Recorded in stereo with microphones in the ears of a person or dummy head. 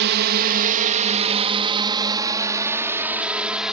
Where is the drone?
55° right (ahead or behind); by 3.7 s 5° right (ahead or behind).